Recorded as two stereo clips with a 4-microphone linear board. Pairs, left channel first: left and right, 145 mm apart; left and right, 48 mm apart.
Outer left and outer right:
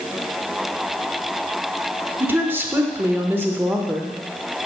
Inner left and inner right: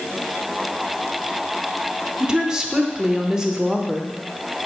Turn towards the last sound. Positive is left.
turn(degrees=-15)  # may be behind; listen again after turning